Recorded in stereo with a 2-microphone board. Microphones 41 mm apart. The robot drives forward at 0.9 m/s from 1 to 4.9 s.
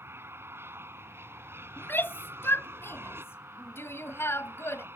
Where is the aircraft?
65° right (ahead or behind); by 5.0 s 60° right (ahead or behind).